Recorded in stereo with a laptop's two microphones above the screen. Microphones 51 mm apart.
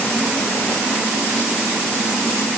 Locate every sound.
Only background noise.